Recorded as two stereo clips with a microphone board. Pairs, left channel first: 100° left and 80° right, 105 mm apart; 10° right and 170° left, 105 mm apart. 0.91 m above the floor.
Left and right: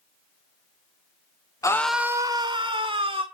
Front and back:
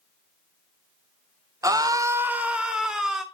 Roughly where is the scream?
Behind left.